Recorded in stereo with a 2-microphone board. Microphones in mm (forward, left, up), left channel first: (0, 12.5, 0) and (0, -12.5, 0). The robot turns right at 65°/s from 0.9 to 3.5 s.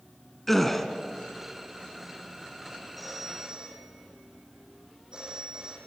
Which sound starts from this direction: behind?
A phone ringing, at 3.0 s.